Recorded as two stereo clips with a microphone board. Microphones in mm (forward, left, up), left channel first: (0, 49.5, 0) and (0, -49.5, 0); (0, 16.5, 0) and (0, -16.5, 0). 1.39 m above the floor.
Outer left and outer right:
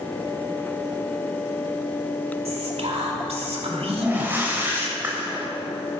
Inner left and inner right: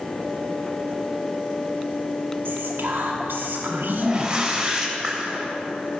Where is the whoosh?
20° right (ahead or behind), 2.5 m.